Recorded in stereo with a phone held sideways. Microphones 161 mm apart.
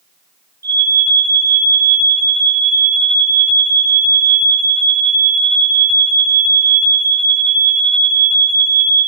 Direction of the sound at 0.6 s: 20° left (ahead or behind).